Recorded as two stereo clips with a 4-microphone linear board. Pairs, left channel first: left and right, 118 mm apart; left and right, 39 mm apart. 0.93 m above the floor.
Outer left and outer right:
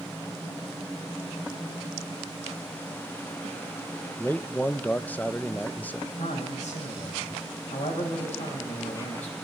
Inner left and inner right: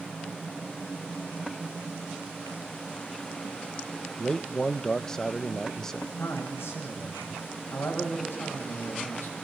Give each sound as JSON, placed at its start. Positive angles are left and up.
{"t": 4.2, "sound": "a man speaking", "side_deg": 15, "distance_m": 0.9}
{"t": 6.2, "sound": "a man speaking", "side_deg": 80, "distance_m": 6.5}